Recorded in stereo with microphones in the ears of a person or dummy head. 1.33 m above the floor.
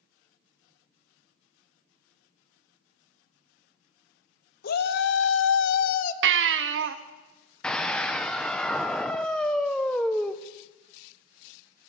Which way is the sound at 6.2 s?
75° right (ahead or behind).